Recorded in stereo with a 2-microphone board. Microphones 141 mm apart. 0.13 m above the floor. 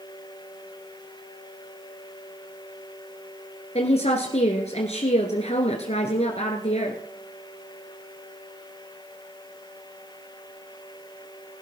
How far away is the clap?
No clap in this recording.